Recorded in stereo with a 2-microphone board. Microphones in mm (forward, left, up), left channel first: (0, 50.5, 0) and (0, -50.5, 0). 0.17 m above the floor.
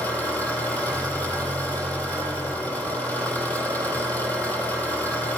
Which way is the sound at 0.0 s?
20° left (ahead or behind).